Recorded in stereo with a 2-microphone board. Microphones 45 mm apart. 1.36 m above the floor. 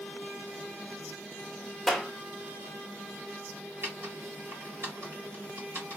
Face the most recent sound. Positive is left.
turn(degrees=-55)  # may be behind; listen again after turning